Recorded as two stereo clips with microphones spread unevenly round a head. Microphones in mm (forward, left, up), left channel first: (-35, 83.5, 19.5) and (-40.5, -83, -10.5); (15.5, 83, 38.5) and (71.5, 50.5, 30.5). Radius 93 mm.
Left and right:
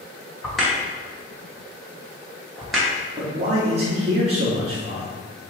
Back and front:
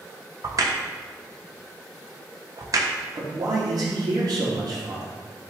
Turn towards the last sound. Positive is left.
turn(degrees=-40)